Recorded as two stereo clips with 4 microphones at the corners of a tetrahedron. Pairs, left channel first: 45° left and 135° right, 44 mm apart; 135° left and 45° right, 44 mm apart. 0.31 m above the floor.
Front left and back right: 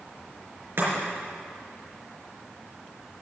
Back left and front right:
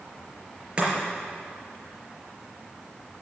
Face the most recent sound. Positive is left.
turn(degrees=-110)